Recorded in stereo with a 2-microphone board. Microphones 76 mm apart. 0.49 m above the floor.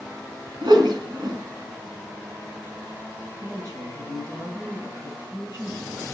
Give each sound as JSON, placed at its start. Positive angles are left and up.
{"t": 0.6, "sound": "a whoosh", "side_deg": -75, "distance_m": 1.4}
{"t": 3.4, "sound": "a woman speaking", "side_deg": -45, "distance_m": 5.0}